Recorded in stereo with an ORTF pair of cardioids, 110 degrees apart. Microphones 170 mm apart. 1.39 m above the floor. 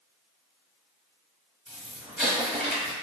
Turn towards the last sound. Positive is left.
turn(degrees=0)